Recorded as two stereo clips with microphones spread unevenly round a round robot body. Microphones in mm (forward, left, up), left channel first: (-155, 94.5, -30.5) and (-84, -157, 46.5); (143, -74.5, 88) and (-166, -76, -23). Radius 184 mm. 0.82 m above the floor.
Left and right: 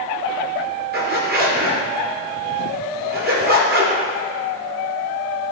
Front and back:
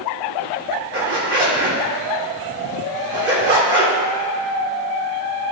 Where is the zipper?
135° right, 2.5 m.